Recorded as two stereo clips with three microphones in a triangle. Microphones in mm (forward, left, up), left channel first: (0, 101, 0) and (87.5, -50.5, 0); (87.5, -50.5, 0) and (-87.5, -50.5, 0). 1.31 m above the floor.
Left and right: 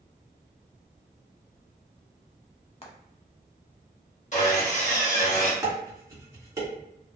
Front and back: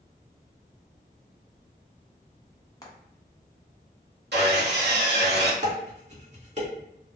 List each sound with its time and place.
2.8 s frying: 65° left, 0.7 m
4.3 s sawing: 165° left, 1.0 m
5.6 s dishes clattering: 130° right, 1.1 m